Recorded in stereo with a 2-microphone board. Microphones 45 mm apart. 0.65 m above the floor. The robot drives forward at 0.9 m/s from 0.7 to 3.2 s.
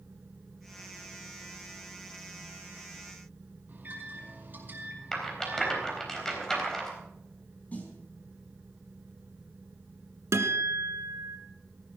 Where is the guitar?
75° right (ahead or behind), 1.6 m.